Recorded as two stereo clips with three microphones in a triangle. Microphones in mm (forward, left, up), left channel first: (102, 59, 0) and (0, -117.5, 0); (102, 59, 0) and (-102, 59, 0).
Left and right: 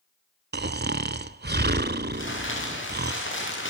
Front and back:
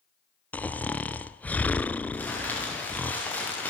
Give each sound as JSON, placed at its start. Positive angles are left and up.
{"t": 0.5, "sound": "snoring", "azimuth_deg": -80, "distance_m": 0.6}
{"t": 2.1, "sound": "crumpling", "azimuth_deg": 80, "distance_m": 6.5}